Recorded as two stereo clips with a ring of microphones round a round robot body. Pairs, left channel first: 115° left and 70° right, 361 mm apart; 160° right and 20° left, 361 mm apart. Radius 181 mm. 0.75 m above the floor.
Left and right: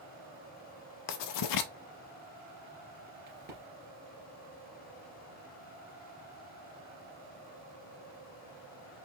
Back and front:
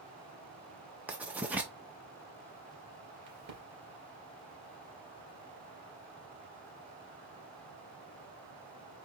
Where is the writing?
110° left, 0.6 m.